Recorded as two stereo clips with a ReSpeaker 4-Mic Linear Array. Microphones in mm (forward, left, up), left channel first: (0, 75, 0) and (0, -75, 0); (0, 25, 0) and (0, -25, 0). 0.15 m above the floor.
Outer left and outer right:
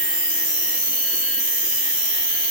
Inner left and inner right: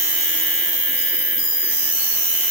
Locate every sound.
0.0 s an insect: 5° right (ahead or behind), 0.8 m